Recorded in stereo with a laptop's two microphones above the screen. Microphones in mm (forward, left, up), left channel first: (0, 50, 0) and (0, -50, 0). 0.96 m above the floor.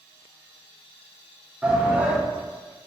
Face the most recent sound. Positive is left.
turn(degrees=-10)  # may be behind; listen again after turning